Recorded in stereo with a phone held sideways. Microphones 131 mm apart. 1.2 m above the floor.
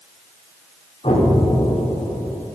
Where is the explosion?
55° left (ahead or behind), 3.5 m.